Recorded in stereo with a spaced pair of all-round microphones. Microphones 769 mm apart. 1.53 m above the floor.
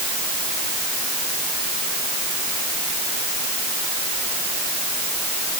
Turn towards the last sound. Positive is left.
No sound to turn to.